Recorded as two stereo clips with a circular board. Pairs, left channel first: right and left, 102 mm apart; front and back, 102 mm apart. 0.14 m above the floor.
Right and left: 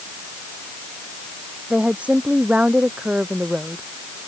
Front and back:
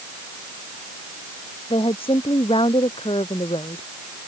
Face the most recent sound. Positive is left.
turn(degrees=15)